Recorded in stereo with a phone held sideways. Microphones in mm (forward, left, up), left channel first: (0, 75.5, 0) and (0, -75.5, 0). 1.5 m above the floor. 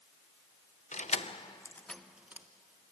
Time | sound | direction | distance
0.9 | keys jangling | 55° left (ahead or behind) | 0.7 m